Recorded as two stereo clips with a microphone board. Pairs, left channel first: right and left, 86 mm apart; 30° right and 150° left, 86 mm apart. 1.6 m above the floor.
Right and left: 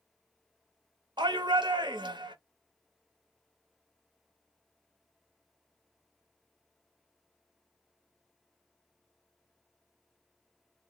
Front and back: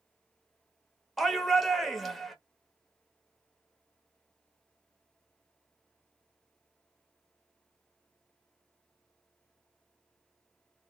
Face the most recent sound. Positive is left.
turn(degrees=60)